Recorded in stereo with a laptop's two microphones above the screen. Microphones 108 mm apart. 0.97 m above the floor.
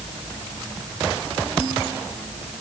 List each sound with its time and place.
Only background noise.